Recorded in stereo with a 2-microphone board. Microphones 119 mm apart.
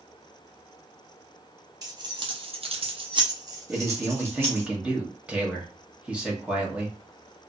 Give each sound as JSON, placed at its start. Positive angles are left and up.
{"t": 1.8, "sound": "keys jangling", "side_deg": -30, "distance_m": 0.7}
{"t": 3.7, "sound": "a man speaking", "side_deg": -10, "distance_m": 0.9}